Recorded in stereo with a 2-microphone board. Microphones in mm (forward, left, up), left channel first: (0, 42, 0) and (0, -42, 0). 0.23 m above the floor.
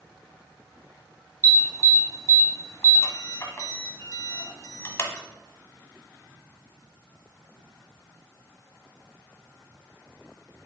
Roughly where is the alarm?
Left.